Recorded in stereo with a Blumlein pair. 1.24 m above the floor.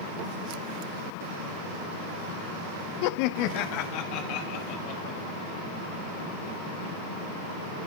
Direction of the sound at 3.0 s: 45° left.